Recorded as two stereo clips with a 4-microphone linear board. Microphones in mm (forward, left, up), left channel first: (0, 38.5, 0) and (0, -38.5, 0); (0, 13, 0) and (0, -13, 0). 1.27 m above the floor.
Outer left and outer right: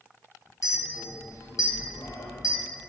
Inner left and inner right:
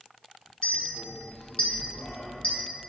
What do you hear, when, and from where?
0.6 s a clink: 45° left (ahead or behind), 0.5 m